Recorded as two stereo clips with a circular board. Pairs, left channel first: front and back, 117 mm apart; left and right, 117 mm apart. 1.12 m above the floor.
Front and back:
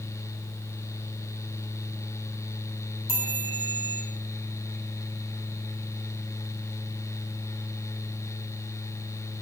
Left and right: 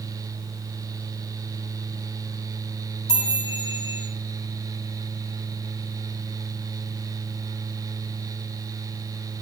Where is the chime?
40° left, 9.5 m.